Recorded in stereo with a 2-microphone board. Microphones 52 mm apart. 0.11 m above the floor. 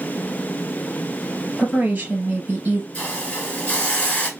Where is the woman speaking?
35° right (ahead or behind), 1.8 m.